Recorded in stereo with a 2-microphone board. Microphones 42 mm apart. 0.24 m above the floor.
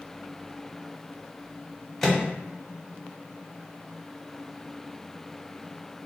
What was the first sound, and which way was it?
A microwave, 5° left (ahead or behind).